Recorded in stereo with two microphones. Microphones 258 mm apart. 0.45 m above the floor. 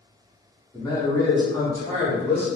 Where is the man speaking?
15° left (ahead or behind), 1.1 m; by 2.5 s 5° left (ahead or behind), 1.9 m.